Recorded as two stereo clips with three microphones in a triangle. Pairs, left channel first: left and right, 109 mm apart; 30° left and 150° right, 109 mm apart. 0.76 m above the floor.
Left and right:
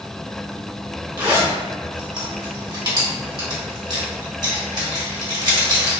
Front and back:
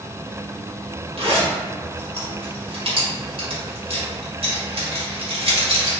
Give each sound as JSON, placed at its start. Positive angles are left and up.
{"t": 1.2, "sound": "a zipper", "azimuth_deg": -135, "distance_m": 1.2}